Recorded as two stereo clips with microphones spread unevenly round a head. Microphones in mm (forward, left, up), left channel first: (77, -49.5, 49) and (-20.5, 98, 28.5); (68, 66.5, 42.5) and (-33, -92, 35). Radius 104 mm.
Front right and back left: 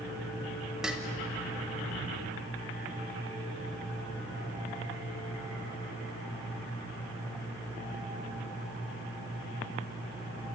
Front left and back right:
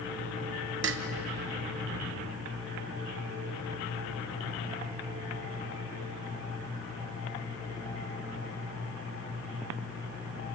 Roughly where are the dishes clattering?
Behind right.